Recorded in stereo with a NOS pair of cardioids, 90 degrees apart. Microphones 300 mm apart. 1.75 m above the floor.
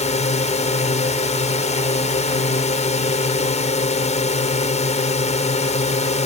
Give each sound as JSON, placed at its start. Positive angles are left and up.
{"t": 0.0, "sound": "a drone", "azimuth_deg": 25}